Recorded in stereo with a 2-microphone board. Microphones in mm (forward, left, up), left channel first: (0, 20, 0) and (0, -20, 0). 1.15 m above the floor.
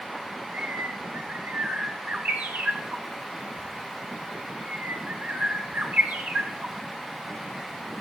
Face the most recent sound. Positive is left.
turn(degrees=-40)  # may be behind; listen again after turning